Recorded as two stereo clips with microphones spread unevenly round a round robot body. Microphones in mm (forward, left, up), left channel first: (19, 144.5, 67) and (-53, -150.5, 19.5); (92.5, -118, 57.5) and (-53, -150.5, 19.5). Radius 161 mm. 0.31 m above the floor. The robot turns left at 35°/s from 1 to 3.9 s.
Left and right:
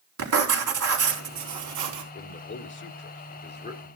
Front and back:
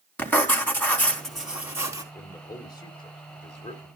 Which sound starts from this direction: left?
A man speaking, at 2.1 s.